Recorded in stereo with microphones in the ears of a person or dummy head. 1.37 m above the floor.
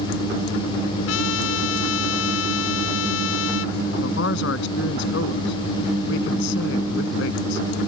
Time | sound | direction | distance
1.1 | a trumpet | 75° left (ahead or behind) | ?
4.0 | a man speaking | 65° left (ahead or behind) | ?